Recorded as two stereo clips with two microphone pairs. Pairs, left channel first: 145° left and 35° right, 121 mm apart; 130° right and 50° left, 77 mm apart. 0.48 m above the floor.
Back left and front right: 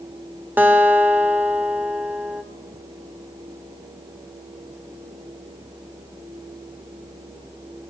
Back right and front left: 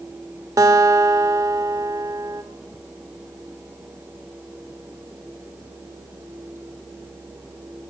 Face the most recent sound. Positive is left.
turn(degrees=35)